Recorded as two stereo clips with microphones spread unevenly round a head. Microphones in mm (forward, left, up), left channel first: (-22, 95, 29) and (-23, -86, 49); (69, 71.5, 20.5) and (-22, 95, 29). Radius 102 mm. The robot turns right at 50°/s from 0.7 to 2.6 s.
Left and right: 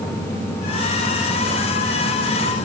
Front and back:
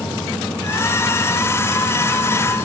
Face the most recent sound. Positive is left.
No sound to turn to.